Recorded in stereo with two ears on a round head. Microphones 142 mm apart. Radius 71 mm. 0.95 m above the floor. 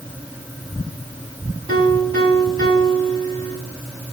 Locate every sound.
1.7 s a piano: 30° left (ahead or behind), 4 m